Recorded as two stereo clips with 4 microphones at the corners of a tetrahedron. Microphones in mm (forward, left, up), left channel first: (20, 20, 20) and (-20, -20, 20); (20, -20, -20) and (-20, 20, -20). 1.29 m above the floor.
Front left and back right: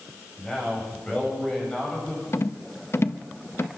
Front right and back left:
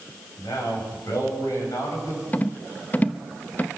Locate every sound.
0.4 s a man speaking: 30° right, 9 m
2.3 s a rattle: 15° left, 0.8 m